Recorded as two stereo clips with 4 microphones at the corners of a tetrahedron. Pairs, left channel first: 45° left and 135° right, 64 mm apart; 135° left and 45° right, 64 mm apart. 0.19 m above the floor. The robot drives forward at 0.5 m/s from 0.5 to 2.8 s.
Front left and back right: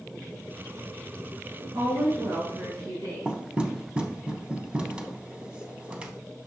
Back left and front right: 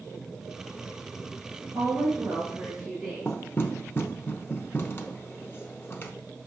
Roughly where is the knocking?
Behind.